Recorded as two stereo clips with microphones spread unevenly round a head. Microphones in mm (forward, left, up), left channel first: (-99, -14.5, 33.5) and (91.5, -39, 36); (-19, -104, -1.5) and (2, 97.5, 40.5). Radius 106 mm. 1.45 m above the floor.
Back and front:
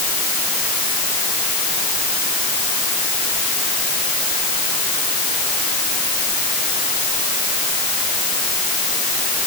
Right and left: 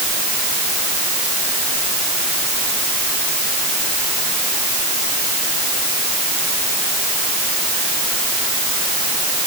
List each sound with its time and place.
Only background noise.